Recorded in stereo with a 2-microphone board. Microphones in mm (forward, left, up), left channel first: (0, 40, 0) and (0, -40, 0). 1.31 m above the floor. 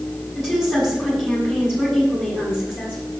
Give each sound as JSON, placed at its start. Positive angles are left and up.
{"t": 0.3, "sound": "a woman speaking", "side_deg": -5, "distance_m": 5.5}